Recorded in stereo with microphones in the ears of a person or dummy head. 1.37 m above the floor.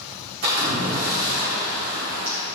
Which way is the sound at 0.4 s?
40° right (ahead or behind).